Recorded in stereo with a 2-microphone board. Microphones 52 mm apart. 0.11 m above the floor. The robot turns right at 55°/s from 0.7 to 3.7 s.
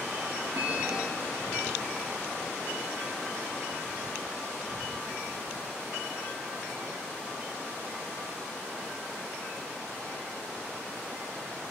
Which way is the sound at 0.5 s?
85° right.